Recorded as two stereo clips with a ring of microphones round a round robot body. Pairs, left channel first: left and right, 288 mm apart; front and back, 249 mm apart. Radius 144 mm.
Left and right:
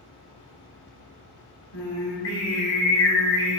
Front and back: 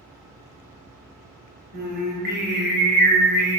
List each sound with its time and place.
1.7 s singing: 130° left, 1.5 m